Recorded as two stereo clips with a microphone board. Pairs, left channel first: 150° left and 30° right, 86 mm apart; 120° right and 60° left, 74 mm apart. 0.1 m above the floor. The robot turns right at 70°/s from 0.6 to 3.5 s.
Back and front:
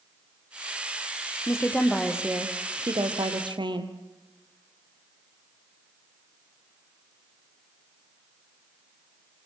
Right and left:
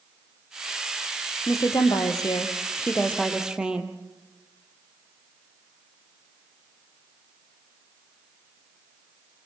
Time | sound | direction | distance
1.5 | a woman speaking | 160° right | 3 m